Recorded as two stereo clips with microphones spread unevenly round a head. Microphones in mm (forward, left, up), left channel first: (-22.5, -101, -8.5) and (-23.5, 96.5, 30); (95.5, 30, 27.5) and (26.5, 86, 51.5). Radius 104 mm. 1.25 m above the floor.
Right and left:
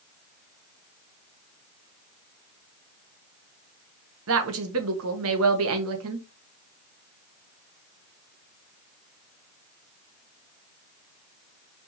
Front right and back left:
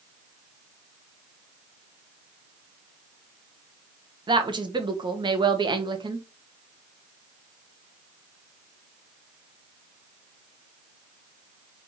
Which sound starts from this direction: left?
A woman speaking, at 4.3 s.